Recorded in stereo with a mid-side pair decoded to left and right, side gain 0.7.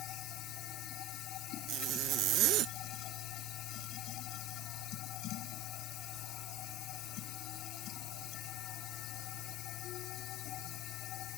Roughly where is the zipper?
Ahead right.